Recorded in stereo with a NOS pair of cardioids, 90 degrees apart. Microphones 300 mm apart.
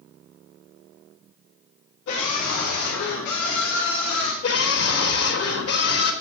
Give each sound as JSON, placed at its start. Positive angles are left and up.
{"t": 2.1, "sound": "a scream", "azimuth_deg": 70, "distance_m": 4.0}
{"t": 4.4, "sound": "a scream", "azimuth_deg": 50, "distance_m": 4.5}